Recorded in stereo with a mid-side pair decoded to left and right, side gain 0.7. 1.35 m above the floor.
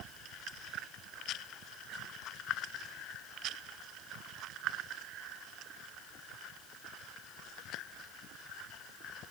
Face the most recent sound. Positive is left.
No sound to turn to.